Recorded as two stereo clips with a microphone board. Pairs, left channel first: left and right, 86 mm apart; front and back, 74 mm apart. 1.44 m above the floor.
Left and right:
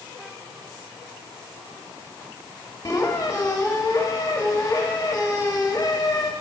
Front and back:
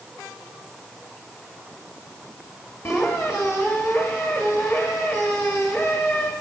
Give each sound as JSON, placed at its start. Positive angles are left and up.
{"t": 2.9, "sound": "a squeak", "azimuth_deg": 45, "distance_m": 1.4}